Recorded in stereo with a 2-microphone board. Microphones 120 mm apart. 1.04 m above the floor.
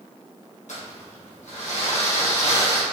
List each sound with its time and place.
0.7 s crumpling: 75° left (ahead or behind), 1.1 m